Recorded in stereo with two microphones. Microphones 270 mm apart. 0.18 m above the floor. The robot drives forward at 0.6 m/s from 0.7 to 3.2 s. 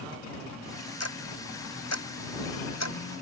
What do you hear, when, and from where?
1.0 s ticking: 65° left (ahead or behind); by 3.0 s 75° left (ahead or behind)